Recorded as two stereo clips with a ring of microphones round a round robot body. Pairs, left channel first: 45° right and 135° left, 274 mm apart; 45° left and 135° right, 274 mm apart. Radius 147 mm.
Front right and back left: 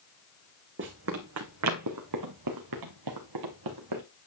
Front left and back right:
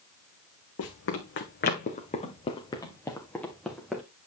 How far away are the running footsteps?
About 1.8 m.